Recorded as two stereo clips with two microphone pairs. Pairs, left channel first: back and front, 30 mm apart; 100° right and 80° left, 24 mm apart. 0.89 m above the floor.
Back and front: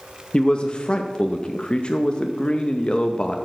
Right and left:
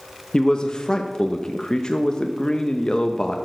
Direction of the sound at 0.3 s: 145° right.